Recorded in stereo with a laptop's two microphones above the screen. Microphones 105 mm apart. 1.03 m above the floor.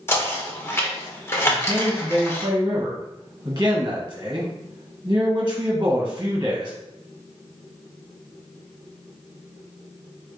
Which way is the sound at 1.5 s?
30° right (ahead or behind).